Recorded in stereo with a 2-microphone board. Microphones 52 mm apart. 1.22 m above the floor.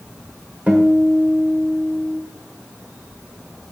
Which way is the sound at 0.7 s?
25° right (ahead or behind).